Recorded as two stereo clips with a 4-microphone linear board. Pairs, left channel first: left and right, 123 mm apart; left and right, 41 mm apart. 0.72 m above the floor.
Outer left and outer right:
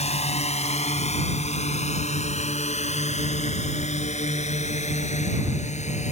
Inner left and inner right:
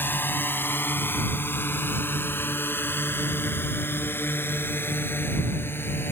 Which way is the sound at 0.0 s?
60° left (ahead or behind).